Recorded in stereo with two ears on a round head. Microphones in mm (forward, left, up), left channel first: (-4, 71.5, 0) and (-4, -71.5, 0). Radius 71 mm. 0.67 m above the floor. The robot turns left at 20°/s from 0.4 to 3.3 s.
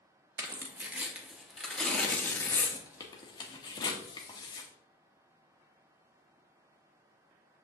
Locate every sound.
0.4 s tearing paper: 15° right (ahead or behind), 1.2 m; by 4.7 s 25° left (ahead or behind), 1.2 m